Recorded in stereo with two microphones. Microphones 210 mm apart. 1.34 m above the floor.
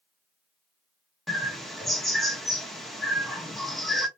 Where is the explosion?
I don't hear an explosion.